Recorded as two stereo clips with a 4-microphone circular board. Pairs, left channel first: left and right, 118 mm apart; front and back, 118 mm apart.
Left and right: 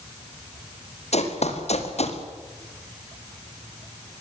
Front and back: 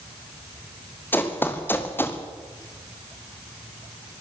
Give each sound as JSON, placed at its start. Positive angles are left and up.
{"t": 1.1, "sound": "running footsteps", "azimuth_deg": 75, "distance_m": 4.5}